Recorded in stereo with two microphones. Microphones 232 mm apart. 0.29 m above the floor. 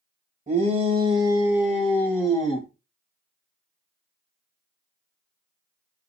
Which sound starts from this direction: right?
A shout, at 0.5 s.